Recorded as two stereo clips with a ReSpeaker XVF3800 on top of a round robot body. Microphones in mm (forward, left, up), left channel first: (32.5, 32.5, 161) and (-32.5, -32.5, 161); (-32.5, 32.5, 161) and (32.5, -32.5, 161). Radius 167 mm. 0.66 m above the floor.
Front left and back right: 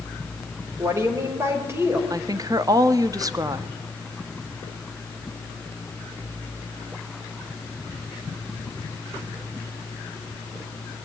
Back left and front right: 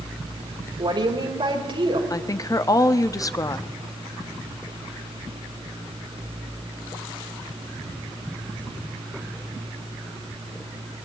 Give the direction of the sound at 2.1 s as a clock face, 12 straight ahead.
6 o'clock.